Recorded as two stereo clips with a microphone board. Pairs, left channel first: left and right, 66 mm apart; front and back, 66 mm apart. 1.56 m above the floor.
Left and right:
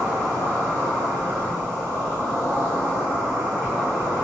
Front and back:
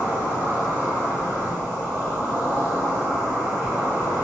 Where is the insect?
140° left, 1.7 m.